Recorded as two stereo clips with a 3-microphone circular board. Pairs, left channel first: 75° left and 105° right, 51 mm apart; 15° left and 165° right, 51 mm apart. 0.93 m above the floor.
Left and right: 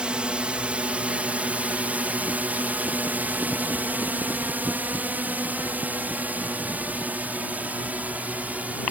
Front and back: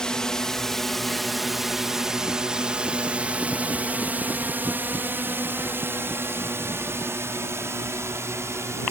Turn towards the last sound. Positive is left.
turn(degrees=-165)